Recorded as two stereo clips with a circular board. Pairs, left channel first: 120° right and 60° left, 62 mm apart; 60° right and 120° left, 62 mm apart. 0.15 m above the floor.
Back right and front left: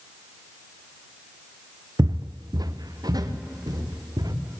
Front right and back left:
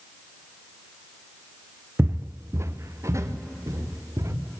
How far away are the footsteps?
About 0.6 m.